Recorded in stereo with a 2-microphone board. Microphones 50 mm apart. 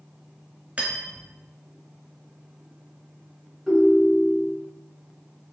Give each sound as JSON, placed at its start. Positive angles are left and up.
{"t": 0.8, "sound": "cutlery clinking", "side_deg": -25, "distance_m": 1.0}
{"t": 3.7, "sound": "a ringtone", "side_deg": 5, "distance_m": 1.3}